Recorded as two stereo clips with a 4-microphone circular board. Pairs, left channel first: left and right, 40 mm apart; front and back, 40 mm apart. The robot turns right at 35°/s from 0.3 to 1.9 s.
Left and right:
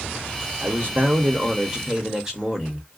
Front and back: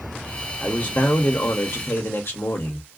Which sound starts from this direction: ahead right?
A man speaking, at 0.6 s.